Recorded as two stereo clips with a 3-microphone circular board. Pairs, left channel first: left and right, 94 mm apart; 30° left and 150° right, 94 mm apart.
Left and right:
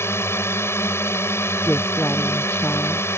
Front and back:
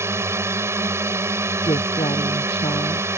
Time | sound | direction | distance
0.0 | a drone | 150° left | ?
1.6 | a woman speaking | 15° left | ?